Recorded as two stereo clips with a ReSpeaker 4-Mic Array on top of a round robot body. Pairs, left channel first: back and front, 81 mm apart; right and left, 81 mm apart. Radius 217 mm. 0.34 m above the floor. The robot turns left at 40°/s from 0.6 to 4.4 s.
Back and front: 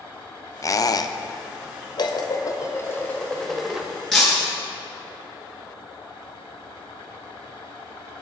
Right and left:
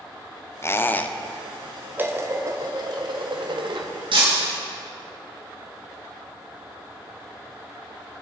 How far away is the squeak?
About 0.9 m.